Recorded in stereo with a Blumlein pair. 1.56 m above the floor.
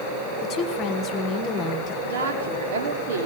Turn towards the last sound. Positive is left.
turn(degrees=-60)